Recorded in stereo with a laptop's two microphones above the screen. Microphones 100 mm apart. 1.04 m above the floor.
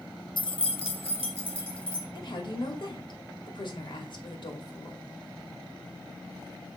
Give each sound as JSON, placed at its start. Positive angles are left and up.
{"t": 0.4, "sound": "keys jangling", "side_deg": 55, "distance_m": 0.5}
{"t": 2.1, "sound": "a woman speaking", "side_deg": 55, "distance_m": 2.5}